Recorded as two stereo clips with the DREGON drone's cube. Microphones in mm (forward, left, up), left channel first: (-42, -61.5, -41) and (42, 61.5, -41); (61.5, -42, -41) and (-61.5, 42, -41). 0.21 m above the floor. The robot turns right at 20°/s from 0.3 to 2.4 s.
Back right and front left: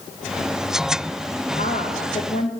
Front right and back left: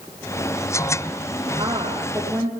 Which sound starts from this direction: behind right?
A woman speaking, at 1.5 s.